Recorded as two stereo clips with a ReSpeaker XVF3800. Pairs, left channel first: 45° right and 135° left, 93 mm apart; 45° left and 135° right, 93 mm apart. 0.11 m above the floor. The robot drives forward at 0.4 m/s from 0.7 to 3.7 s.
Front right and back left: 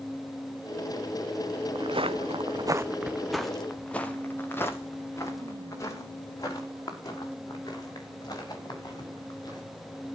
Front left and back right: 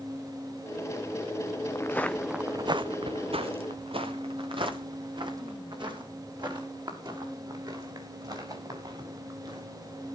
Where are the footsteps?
105° left, 1.0 m; by 9.6 s 90° right, 7.5 m.